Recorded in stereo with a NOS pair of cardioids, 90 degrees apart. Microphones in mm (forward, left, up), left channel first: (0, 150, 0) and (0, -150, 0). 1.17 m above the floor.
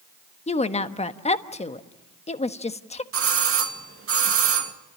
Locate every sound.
0.5 s a woman speaking: 20° left, 1.3 m
3.1 s a doorbell: 45° right, 2 m